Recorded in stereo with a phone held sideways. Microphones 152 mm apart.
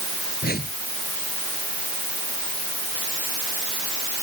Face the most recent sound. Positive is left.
turn(degrees=85)